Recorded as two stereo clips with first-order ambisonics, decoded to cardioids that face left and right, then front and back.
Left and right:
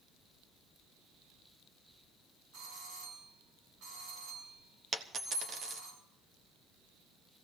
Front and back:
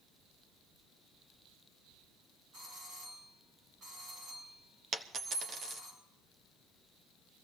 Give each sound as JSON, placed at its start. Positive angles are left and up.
{"t": 2.5, "sound": "a doorbell", "azimuth_deg": -120, "distance_m": 7.5}
{"t": 4.9, "sound": "a dropped coin", "azimuth_deg": -140, "distance_m": 0.9}